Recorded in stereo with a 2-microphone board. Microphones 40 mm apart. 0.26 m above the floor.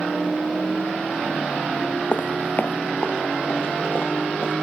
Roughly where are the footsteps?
Left.